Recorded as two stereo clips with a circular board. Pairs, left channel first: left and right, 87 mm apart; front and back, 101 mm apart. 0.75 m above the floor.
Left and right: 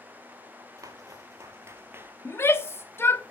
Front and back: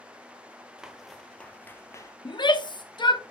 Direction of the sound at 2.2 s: 35° left.